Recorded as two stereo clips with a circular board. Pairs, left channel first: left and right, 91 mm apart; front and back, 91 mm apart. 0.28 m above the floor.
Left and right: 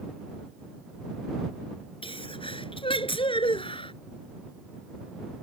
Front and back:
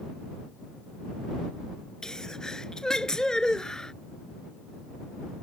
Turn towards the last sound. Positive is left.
turn(degrees=80)